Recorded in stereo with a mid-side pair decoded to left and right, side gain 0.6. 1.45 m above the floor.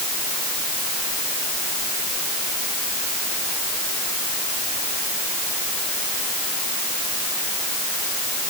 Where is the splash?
No splash in this recording.